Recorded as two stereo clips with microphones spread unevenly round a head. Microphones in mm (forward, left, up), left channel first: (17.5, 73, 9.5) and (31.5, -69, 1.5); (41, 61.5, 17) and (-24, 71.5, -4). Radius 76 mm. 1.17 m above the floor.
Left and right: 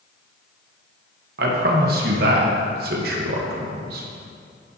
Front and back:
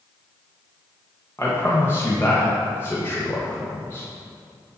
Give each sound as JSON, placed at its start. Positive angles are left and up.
{"t": 1.4, "sound": "a man speaking", "azimuth_deg": -85, "distance_m": 1.2}